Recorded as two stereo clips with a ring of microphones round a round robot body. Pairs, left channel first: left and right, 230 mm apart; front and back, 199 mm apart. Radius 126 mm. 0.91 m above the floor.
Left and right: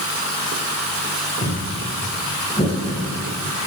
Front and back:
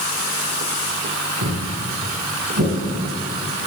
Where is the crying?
No crying in this recording.